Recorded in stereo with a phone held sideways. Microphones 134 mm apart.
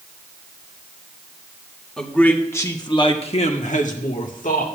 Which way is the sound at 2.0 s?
5° left (ahead or behind).